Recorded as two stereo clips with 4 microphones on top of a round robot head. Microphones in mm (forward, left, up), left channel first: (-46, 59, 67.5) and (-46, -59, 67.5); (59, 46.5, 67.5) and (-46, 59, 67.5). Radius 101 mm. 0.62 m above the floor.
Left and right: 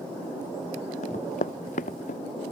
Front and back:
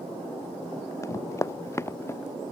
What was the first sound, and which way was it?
Running footsteps, 55° left.